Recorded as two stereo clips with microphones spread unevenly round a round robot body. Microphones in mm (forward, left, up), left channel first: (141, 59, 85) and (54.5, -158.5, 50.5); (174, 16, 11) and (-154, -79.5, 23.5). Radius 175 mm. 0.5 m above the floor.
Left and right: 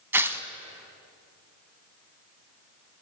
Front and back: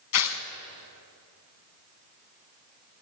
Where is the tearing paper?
30° right, 1.2 m.